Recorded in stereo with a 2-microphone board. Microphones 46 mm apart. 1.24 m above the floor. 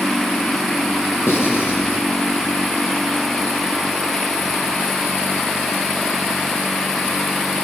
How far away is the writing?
About 9 m.